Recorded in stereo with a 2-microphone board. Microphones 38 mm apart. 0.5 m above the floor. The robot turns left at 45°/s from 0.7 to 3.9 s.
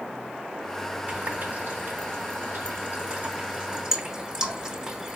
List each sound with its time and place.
1.1 s a running tap: 35° right (ahead or behind), 1.3 m; by 5.2 s 15° right (ahead or behind), 1.3 m